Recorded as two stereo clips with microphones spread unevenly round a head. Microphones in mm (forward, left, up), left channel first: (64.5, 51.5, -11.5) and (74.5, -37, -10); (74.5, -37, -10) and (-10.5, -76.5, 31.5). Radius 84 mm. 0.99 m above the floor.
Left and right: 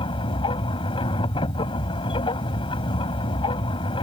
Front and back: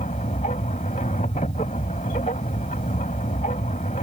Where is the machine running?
75° left.